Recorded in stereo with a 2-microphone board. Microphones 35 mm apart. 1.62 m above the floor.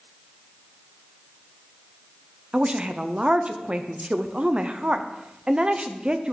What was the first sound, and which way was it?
A woman speaking, 30° right (ahead or behind).